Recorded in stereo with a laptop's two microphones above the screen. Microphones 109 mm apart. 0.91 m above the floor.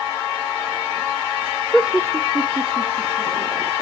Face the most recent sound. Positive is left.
turn(degrees=-60)  # may be behind; listen again after turning